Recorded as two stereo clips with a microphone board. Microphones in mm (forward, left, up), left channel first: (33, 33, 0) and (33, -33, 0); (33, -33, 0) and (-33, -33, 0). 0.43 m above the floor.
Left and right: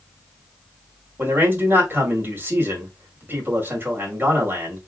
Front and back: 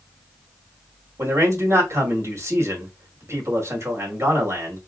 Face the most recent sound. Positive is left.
turn(degrees=-140)